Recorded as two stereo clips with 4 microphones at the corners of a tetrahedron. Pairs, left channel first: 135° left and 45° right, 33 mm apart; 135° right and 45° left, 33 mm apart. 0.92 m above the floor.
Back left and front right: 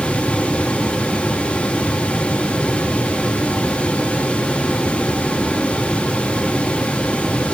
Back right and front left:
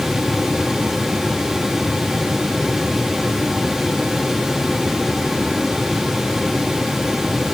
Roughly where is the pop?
I don't hear a pop.